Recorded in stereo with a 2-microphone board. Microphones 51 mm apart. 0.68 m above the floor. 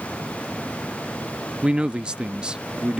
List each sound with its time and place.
1.6 s a man speaking: 20° right (ahead or behind)